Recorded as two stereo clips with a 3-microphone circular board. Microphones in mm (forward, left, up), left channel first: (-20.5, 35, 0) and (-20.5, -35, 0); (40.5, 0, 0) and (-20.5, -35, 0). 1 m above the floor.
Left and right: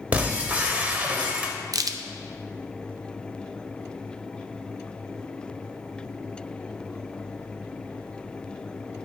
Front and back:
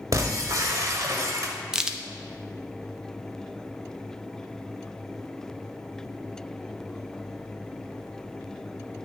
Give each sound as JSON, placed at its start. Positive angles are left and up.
{"t": 0.1, "sound": "breaking glass", "azimuth_deg": -155, "distance_m": 1.0}
{"t": 1.7, "sound": "a crack", "azimuth_deg": -70, "distance_m": 0.5}